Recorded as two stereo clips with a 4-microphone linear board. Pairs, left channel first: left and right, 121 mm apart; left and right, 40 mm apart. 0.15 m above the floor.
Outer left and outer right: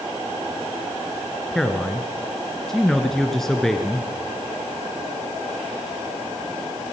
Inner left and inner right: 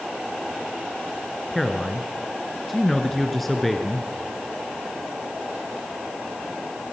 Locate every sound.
1.5 s a man speaking: 5° left (ahead or behind), 1.7 m